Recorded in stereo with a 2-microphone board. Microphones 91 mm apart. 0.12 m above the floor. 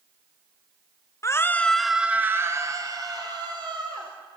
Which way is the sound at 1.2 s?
35° left (ahead or behind).